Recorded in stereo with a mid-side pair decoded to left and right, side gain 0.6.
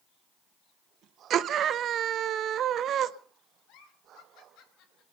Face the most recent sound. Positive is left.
turn(degrees=70)